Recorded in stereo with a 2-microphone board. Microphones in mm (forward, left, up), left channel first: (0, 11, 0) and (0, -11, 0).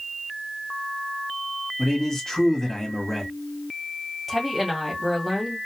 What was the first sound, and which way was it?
A man speaking, 20° left (ahead or behind).